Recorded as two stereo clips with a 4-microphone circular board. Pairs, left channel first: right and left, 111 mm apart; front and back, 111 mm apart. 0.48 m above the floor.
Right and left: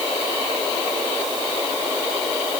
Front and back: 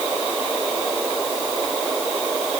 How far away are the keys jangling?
No keys jangling in this recording.